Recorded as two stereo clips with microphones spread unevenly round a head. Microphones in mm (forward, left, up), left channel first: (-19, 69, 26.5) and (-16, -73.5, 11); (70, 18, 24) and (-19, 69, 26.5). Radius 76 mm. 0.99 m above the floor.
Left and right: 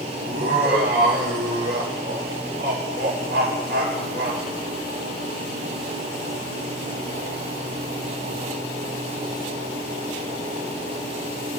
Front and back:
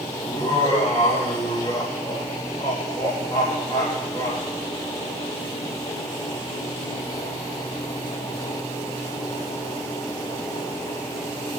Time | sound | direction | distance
0.2 | laughter | 90° right | 4 m